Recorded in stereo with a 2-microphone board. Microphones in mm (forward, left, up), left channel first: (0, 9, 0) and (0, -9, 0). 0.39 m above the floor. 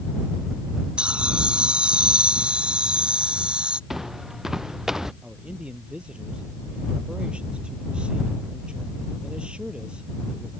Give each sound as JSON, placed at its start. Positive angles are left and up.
{"t": 1.0, "sound": "laughter", "side_deg": -80}
{"t": 3.9, "sound": "footsteps", "side_deg": -15}
{"t": 5.2, "sound": "a man speaking", "side_deg": -75}